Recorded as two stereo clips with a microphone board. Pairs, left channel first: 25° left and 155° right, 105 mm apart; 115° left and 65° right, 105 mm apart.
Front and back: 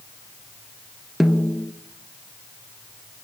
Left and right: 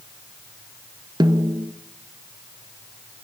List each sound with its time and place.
1.2 s a snare drum: 70° right, 1.6 m